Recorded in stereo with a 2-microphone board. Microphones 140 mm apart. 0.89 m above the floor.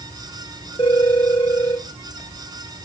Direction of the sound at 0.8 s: 35° left (ahead or behind).